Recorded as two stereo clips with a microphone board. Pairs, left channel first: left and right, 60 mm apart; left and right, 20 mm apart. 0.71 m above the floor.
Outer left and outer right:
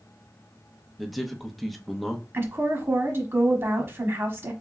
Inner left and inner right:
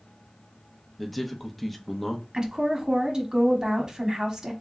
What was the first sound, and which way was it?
A man speaking, centre (ahead or behind).